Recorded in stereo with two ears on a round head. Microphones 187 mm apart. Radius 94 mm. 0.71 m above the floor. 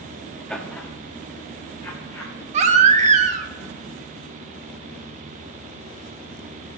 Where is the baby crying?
35° right (ahead or behind), 1.1 m.